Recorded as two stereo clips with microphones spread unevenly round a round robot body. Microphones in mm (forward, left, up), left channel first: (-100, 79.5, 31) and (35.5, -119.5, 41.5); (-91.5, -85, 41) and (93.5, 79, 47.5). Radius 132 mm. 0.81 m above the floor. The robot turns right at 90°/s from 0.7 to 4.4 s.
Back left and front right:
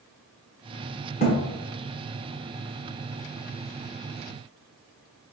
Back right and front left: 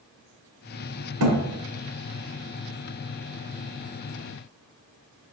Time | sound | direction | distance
1.2 | a thud | 55° left | 1.1 m